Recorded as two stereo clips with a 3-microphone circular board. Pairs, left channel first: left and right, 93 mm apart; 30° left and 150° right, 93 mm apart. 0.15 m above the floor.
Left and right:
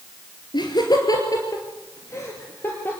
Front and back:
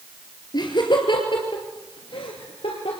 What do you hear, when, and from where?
0.5 s laughter: 65° left, 2.5 m; by 3.0 s 20° left, 3 m